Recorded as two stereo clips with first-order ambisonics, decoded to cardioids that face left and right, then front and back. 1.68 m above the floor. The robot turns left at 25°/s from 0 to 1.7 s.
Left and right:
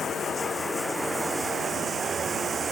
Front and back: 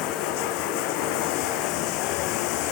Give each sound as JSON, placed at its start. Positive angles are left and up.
{"t": 0.0, "sound": "running water", "azimuth_deg": 25}